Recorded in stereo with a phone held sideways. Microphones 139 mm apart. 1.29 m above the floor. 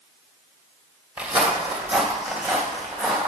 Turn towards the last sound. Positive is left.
turn(degrees=0)  # may be behind; listen again after turning